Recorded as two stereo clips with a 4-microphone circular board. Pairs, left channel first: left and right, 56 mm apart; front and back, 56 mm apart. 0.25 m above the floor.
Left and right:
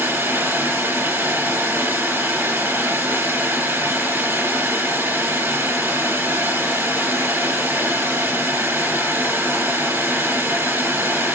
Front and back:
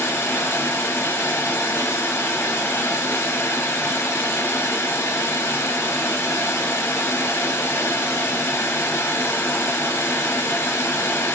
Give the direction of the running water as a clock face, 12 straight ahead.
1 o'clock.